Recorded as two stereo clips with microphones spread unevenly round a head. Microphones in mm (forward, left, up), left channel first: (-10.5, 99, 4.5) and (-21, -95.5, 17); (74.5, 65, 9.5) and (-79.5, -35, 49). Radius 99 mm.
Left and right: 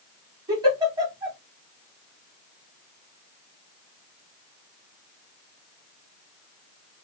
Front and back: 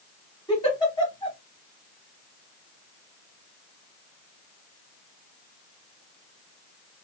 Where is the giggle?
45° right, 1.2 m.